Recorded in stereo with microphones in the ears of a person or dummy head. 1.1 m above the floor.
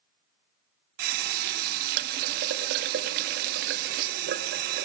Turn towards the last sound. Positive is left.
turn(degrees=-55)  # may be behind; listen again after turning